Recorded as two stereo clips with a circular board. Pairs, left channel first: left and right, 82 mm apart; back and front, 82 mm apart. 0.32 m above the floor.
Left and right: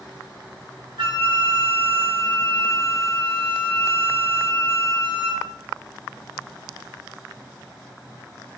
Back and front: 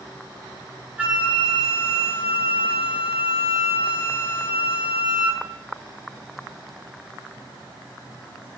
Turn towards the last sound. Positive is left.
turn(degrees=-75)